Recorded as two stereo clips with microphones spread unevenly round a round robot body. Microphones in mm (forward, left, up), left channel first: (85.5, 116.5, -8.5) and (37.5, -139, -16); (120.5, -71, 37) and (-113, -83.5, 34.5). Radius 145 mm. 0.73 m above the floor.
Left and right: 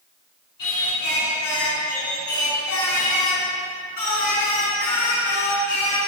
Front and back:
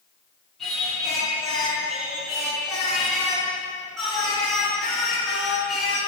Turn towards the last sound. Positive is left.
turn(degrees=90)